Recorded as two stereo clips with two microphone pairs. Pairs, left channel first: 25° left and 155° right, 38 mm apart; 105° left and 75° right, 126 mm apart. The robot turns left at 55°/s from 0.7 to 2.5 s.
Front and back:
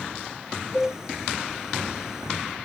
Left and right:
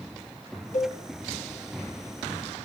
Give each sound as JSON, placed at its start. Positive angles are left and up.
{"t": 0.7, "sound": "a cowbell", "azimuth_deg": 110, "distance_m": 3.0}